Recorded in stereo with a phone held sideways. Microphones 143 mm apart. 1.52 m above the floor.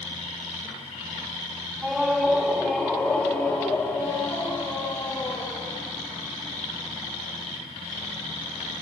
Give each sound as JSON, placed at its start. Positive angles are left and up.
{"t": 1.8, "sound": "a scream", "side_deg": -5, "distance_m": 3.5}